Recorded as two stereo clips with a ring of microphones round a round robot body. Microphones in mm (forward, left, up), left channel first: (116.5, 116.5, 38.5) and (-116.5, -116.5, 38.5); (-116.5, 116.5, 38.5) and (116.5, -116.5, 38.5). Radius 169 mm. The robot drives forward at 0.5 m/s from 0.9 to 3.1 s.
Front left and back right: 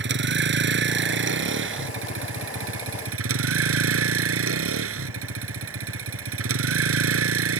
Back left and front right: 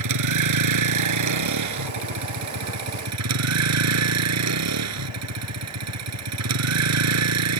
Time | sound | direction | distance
0.0 | a vehicle | 80° right | ?